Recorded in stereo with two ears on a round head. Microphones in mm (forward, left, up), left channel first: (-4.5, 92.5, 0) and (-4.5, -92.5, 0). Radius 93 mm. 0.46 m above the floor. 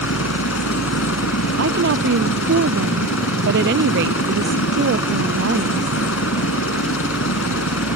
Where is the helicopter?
70° left (ahead or behind).